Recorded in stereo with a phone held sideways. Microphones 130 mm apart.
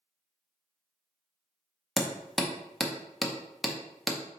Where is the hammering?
Centre (ahead or behind), 0.5 m.